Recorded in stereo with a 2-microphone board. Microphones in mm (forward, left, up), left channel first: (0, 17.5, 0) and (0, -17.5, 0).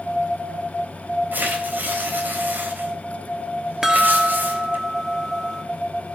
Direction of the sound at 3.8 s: 15° right (ahead or behind).